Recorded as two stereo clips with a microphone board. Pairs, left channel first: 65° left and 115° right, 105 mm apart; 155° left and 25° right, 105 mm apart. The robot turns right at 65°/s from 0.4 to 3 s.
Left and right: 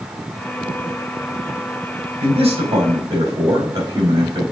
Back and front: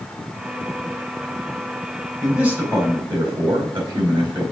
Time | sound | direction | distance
2.2 | a man speaking | 115° right | 4 m